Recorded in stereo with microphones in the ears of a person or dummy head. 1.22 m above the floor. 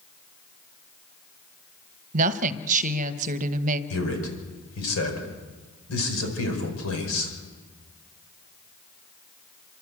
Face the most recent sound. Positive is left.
turn(degrees=90)